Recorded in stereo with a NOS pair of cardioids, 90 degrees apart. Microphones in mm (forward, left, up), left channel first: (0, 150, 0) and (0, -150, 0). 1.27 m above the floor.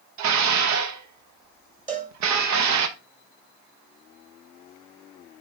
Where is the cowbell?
25° right, 2.5 m.